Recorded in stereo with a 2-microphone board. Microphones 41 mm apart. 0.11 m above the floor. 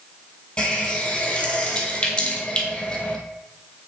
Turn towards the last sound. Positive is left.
turn(degrees=35)  # may be behind; listen again after turning